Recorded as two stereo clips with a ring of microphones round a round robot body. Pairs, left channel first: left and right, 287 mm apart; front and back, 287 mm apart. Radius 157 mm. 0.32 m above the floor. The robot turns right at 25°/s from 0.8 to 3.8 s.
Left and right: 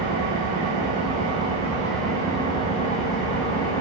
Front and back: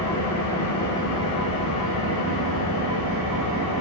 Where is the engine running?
30° right, 1.0 m; by 3.8 s 45° left, 1.0 m.